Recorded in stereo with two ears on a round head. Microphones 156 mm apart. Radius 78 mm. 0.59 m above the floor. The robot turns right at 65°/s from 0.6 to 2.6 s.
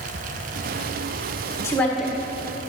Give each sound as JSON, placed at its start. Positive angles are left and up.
{"t": 1.6, "sound": "a woman speaking", "azimuth_deg": 160, "distance_m": 1.6}